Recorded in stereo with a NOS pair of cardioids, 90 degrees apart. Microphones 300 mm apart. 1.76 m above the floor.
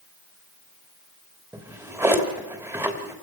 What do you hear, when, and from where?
1.5 s a drawer: 10° right, 3 m